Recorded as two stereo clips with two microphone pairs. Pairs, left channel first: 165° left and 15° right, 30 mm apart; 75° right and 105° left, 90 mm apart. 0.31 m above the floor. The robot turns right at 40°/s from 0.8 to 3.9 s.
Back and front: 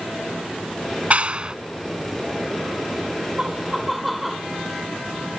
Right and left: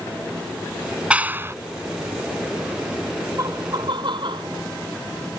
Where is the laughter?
50° left; by 4.5 s 75° left.